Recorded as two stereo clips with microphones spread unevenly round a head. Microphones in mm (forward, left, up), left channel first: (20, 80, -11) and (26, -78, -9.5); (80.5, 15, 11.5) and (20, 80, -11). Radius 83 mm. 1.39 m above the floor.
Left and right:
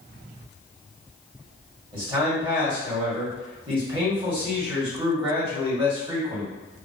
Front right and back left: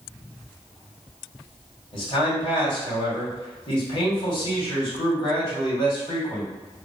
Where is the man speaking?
30° right, 1.6 m.